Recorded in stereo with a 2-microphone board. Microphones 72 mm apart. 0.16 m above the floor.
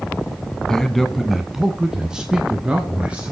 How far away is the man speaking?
About 1.0 m.